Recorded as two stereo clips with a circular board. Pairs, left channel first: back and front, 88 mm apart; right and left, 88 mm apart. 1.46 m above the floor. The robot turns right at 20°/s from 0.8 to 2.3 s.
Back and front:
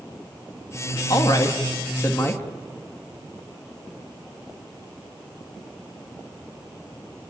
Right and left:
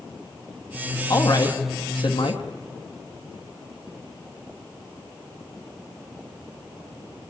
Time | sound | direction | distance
1.1 | a woman speaking | 135° right | 2.5 m